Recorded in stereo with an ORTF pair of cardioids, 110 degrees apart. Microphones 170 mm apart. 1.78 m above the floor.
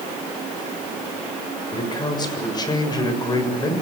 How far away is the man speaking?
About 7 m.